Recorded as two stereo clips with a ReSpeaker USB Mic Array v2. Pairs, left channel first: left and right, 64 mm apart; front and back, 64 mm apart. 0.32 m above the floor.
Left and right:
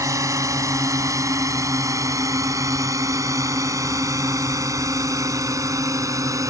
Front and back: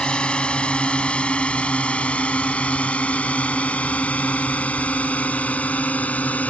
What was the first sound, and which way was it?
A drone, 70° right.